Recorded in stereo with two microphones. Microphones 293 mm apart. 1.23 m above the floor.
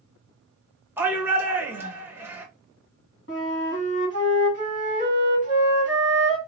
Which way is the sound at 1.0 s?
5° right (ahead or behind).